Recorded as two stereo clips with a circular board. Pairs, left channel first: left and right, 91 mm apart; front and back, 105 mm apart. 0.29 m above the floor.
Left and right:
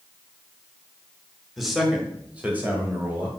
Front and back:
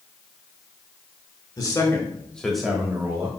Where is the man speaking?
Straight ahead, 1.8 m; by 3.3 s 135° right, 1.8 m.